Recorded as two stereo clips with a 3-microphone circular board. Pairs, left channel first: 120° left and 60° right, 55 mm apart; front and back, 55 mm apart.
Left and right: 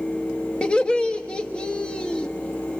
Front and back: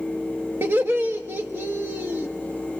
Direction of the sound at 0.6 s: Straight behind.